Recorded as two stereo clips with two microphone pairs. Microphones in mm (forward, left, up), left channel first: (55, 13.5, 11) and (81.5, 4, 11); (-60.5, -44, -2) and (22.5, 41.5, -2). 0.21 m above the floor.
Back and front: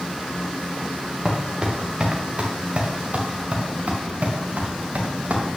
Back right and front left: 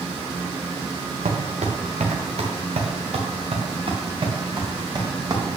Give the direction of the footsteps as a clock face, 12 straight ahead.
10 o'clock.